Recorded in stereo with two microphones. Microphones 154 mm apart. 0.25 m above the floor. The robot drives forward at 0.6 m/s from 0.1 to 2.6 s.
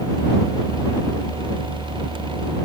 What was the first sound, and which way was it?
Only background noise.